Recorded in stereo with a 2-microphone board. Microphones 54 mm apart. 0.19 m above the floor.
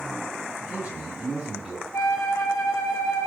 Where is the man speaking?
30° right (ahead or behind), 1.3 m; by 1.8 s 10° right (ahead or behind), 1.5 m.